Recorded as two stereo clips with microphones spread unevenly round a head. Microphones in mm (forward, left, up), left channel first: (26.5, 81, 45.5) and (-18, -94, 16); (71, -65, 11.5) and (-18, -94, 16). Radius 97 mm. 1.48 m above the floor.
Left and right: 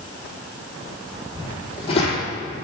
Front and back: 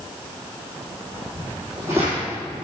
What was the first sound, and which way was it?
Footsteps, 130° left.